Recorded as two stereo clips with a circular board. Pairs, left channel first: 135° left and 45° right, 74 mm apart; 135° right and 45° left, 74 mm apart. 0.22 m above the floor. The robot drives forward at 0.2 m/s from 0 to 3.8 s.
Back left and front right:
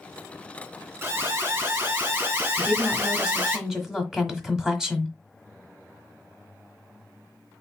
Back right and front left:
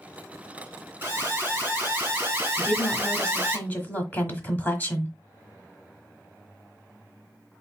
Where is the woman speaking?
90° right, 1.1 m; by 5.1 s 120° right, 1.2 m.